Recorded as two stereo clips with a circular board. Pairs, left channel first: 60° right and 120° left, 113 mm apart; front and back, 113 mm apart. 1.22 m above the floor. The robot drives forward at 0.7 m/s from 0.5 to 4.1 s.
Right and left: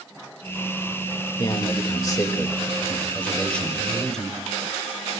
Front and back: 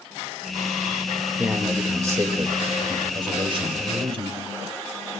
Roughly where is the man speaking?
Right.